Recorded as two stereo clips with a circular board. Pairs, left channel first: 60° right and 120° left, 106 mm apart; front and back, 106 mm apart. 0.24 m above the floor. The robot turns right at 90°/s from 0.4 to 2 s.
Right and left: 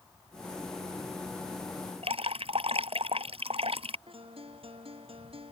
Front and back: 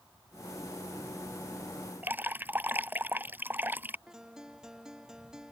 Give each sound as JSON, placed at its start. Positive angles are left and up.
{"t": 2.0, "sound": "dripping", "azimuth_deg": 110}
{"t": 4.1, "sound": "a guitar", "azimuth_deg": 95}